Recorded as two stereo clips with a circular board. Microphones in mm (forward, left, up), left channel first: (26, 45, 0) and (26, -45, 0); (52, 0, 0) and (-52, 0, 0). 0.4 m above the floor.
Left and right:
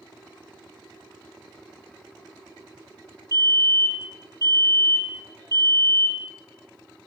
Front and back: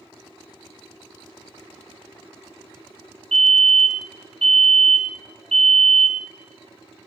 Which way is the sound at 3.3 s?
80° left.